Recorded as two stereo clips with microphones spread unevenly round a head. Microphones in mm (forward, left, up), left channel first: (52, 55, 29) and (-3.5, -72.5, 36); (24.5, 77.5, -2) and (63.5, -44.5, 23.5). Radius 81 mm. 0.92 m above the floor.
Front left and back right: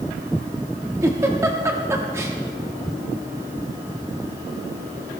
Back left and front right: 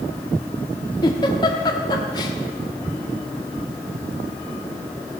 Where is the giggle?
175° left, 1.1 m.